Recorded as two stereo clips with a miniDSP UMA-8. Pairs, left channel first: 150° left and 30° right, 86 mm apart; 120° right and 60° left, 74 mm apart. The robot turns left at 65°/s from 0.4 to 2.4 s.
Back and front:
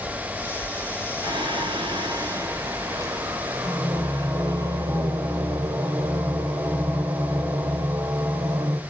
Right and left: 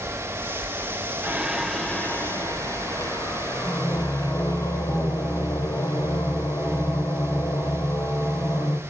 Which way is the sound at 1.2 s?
Straight ahead.